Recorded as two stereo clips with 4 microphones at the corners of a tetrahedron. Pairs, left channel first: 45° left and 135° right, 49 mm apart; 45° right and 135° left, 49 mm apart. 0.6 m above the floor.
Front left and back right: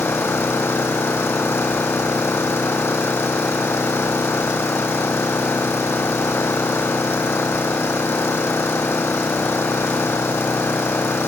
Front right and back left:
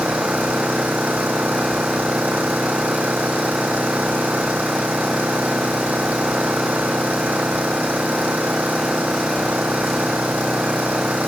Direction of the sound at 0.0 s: 75° left.